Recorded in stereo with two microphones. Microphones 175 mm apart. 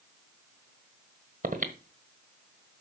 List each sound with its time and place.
1.4 s breathing: 50° right (ahead or behind), 1.2 m